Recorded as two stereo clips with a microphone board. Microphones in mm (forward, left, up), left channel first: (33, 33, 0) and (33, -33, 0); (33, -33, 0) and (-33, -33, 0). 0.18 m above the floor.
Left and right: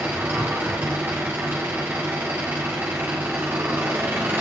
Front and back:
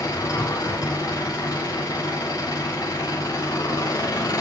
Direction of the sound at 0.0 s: 25° right.